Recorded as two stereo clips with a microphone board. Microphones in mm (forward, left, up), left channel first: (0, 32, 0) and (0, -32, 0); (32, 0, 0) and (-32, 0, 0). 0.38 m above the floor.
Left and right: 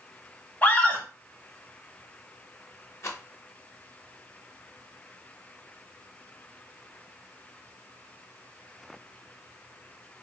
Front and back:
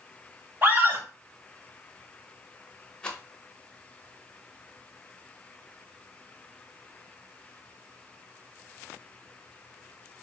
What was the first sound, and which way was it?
A scream, 140° left.